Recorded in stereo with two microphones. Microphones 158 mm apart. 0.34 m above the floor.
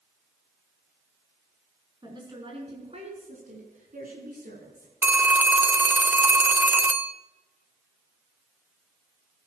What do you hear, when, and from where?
2.0 s a woman speaking: 25° right (ahead or behind), 4.5 m; by 4.9 s 70° right (ahead or behind), 5 m
5.0 s a phone ringing: 10° right (ahead or behind), 0.6 m